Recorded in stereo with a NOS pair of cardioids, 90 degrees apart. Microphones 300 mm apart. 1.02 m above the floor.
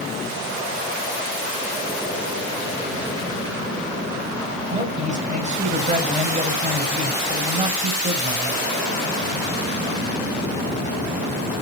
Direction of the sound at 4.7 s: 25° right.